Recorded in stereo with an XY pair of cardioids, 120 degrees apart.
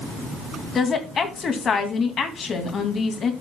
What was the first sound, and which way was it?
A woman speaking, 45° left.